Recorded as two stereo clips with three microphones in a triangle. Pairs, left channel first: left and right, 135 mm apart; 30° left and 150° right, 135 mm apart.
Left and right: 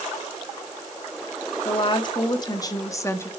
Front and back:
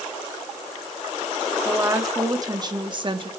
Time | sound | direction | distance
1.6 | a woman speaking | 140° left | 2.5 m